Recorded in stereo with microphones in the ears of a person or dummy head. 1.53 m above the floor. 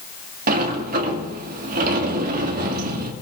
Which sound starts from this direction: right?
A sliding door, at 0.5 s.